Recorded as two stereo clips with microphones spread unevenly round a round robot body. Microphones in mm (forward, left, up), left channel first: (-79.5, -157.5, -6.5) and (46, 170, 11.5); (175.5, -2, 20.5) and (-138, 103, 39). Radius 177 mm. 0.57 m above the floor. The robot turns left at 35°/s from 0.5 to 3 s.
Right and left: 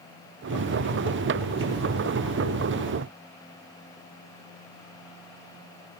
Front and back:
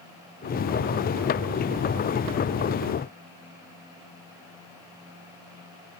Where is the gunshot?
No gunshot in this recording.